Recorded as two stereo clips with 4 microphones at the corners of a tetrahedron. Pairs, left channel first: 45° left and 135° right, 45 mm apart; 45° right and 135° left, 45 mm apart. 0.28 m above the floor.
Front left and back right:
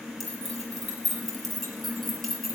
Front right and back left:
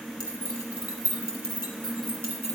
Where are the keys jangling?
130° left, 5 m.